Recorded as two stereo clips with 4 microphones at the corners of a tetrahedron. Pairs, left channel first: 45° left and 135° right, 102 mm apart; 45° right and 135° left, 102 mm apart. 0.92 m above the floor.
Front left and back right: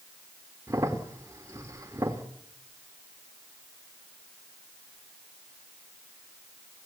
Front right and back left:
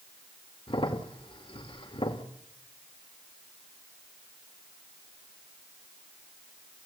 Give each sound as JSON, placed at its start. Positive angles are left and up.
{"t": 0.7, "sound": "a crack", "azimuth_deg": -75, "distance_m": 2.0}